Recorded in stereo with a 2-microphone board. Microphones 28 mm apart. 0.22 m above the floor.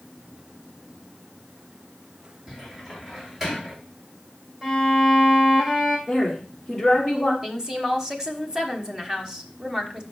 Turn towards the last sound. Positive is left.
turn(degrees=-25)  # may be behind; listen again after turning